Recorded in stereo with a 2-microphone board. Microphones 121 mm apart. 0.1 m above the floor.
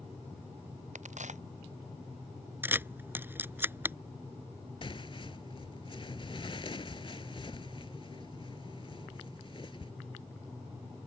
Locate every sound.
0.9 s a crack: 80° right
2.6 s a camera shutter: 20° right (ahead or behind)
4.8 s tearing paper: 45° left (ahead or behind)